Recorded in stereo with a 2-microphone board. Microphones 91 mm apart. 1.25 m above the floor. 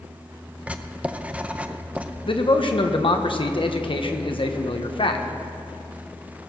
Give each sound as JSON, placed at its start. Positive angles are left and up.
{"t": 0.7, "sound": "writing", "side_deg": -15, "distance_m": 0.6}
{"t": 2.3, "sound": "a man speaking", "side_deg": 65, "distance_m": 1.1}